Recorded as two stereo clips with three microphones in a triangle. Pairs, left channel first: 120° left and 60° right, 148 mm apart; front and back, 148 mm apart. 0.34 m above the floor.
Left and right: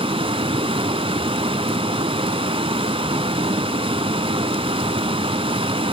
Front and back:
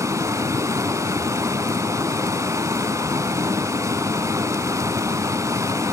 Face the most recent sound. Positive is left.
turn(degrees=-110)